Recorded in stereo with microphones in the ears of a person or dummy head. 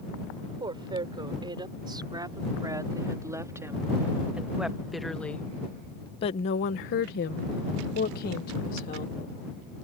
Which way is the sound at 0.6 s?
15° right (ahead or behind).